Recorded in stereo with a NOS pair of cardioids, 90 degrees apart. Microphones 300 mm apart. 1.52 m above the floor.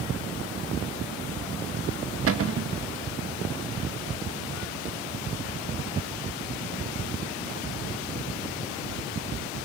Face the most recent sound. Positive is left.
turn(degrees=-50)